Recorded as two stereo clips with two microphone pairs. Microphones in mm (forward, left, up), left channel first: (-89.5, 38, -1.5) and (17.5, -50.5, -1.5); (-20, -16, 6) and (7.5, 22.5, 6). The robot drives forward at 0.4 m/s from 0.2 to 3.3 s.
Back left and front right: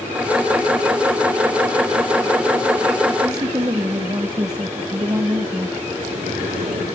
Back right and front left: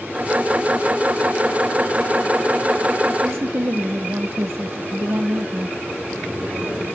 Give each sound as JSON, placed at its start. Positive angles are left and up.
{"t": 3.2, "sound": "a woman speaking", "azimuth_deg": 25, "distance_m": 1.0}
{"t": 5.9, "sound": "a sliding door", "azimuth_deg": -45, "distance_m": 6.5}